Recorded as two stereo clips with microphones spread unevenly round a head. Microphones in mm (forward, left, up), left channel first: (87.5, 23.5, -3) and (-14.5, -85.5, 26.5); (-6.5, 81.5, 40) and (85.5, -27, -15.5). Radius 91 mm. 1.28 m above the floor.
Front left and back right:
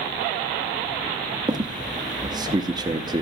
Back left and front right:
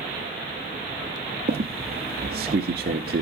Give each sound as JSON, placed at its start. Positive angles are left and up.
{"t": 1.5, "sound": "a squeak", "azimuth_deg": -90, "distance_m": 0.9}